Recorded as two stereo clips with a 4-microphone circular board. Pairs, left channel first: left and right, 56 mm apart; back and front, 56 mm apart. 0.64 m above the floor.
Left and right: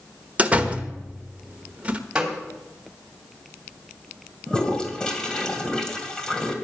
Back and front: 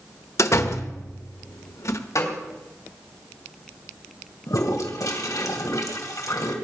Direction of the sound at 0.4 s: 155° right.